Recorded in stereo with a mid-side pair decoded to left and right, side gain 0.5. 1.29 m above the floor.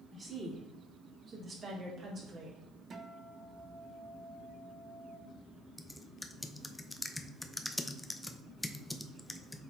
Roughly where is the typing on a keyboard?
Ahead.